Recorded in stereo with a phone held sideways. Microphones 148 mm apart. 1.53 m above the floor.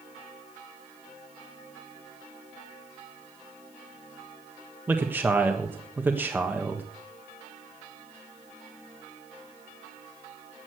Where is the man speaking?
10° right (ahead or behind), 1.4 m.